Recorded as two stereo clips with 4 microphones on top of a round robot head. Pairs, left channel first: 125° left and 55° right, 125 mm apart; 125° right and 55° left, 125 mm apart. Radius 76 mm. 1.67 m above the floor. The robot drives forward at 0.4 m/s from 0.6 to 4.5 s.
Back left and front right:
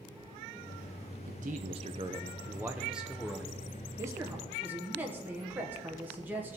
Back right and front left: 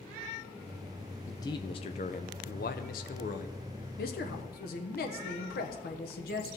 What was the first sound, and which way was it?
A man speaking, 60° right.